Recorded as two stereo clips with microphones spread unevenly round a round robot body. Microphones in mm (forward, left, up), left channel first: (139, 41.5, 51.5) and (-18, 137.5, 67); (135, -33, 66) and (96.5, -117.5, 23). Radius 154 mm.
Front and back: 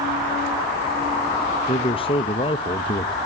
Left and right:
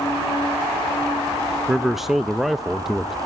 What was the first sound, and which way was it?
A man speaking, 65° right.